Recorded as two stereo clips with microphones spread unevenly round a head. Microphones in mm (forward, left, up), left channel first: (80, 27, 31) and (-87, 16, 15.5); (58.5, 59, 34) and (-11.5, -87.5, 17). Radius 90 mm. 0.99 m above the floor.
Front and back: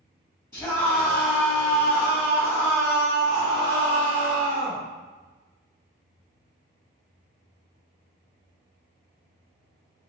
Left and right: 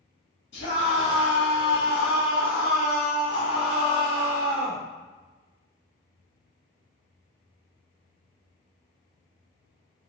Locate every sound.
0.5 s a scream: 75° left, 1.8 m; by 4.8 s 160° left, 1.5 m